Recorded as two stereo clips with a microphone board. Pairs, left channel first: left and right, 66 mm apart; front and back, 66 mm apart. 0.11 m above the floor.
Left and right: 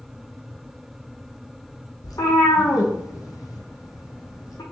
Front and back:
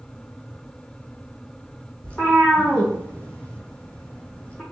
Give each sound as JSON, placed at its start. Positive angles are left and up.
{"t": 2.0, "sound": "a cat meowing", "azimuth_deg": 75, "distance_m": 1.0}